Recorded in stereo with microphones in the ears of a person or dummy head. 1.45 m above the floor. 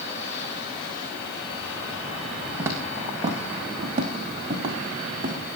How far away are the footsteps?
About 3.5 m.